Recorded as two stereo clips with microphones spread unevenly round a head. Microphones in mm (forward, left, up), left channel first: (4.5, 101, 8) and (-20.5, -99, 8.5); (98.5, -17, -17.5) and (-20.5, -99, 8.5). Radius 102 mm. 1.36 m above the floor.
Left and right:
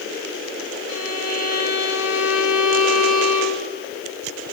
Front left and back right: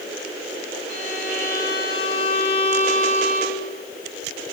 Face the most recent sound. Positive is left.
turn(degrees=80)